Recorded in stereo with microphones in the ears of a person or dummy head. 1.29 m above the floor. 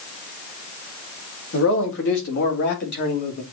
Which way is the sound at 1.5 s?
70° left (ahead or behind).